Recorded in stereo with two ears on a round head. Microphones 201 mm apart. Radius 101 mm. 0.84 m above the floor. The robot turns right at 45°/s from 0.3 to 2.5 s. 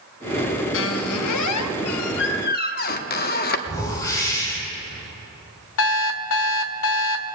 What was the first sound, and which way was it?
A squeak, 55° left.